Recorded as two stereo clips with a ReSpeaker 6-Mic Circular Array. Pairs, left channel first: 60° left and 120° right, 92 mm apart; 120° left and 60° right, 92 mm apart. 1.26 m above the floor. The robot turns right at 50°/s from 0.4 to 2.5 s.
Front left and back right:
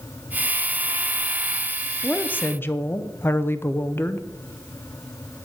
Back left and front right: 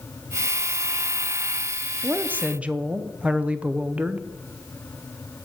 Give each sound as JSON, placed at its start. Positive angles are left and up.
{"t": 2.0, "sound": "a woman speaking", "azimuth_deg": -15, "distance_m": 0.6}